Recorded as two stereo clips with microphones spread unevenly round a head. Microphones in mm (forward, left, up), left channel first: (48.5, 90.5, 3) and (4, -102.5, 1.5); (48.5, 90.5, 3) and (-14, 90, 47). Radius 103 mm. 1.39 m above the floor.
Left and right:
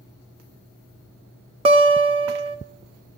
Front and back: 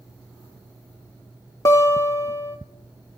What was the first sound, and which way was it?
A guitar, 95° right.